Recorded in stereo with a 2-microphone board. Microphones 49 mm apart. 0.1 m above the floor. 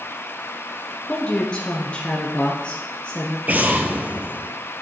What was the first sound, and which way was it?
A woman speaking, 25° left (ahead or behind).